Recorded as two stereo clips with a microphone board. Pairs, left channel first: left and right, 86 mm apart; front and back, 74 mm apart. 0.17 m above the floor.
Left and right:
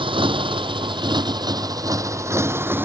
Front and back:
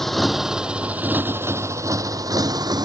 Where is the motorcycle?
85° right; by 2.9 s 155° right.